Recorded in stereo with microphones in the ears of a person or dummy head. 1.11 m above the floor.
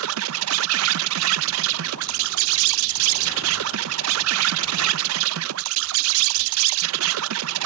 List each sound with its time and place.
0.0 s an insect: 70° right (ahead or behind)